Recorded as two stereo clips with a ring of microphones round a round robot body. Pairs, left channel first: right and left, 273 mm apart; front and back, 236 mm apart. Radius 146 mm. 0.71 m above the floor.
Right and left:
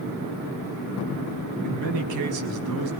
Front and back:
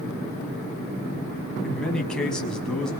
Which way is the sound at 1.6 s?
85° left.